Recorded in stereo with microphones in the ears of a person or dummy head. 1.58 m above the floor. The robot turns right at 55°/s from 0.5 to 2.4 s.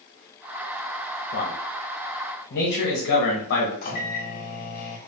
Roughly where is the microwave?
Left.